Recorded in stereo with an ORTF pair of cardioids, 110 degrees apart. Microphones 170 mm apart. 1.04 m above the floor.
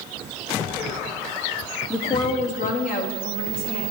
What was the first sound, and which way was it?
A woman speaking, straight ahead.